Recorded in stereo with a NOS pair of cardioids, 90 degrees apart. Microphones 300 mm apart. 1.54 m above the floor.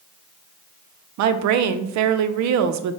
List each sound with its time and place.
1.2 s a woman speaking: 70° right, 0.5 m